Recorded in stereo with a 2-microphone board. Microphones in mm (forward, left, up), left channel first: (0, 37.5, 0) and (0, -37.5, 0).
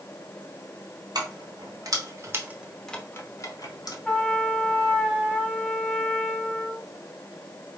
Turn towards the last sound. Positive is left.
turn(degrees=5)  # may be behind; listen again after turning